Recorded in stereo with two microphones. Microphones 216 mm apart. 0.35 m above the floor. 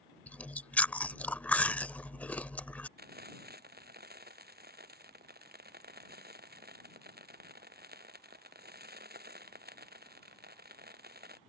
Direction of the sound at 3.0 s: 45° right (ahead or behind).